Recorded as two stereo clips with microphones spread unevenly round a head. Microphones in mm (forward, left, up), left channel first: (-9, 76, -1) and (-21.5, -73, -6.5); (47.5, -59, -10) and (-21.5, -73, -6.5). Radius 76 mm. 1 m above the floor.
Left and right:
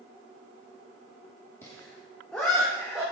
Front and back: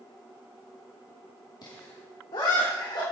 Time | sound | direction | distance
1.6 | laughter | 10° left | 2.5 m